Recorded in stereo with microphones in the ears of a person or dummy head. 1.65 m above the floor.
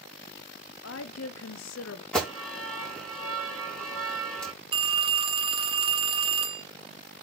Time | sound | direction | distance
0.8 | a woman speaking | 85° left | 0.9 m
2.1 | an alarm | 10° left (ahead or behind) | 5.5 m
4.7 | a phone ringing | 25° right (ahead or behind) | 1.0 m